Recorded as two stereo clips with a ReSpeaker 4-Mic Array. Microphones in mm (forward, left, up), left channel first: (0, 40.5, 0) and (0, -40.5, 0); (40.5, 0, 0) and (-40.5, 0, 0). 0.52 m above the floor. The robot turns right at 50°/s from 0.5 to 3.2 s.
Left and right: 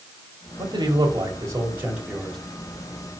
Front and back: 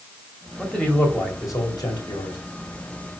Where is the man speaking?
85° right, 2 m; by 2.4 s straight ahead, 2 m.